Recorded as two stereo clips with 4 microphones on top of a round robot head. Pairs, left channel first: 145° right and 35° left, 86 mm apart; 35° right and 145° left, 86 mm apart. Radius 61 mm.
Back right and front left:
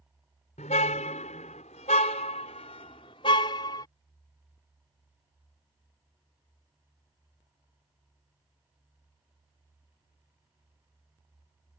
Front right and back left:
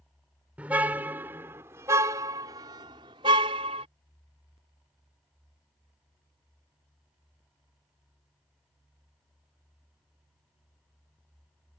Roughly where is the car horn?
Behind right.